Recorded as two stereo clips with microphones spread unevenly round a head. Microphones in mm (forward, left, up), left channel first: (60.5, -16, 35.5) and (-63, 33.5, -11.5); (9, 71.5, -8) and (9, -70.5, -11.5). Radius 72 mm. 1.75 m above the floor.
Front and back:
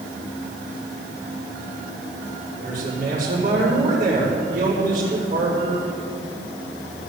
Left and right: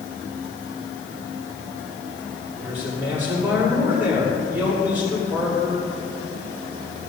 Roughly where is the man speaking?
Behind.